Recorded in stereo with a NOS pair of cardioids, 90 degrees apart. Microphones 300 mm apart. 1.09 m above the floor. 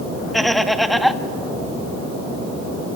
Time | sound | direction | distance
0.3 | laughter | straight ahead | 1.4 m